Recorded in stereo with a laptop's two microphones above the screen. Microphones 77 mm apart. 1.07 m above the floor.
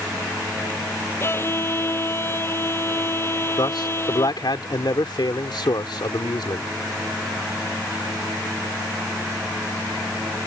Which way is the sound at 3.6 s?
70° left (ahead or behind).